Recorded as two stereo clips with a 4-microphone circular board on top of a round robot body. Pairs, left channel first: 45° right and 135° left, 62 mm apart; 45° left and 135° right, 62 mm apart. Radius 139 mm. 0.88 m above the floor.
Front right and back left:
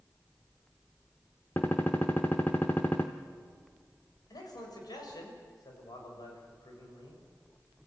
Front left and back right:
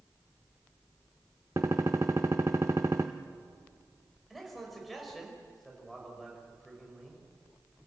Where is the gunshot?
100° right, 0.5 m.